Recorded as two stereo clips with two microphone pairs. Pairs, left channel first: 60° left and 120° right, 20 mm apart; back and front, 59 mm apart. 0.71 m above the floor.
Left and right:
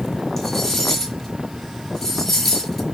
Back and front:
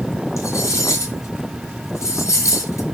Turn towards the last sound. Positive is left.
turn(degrees=140)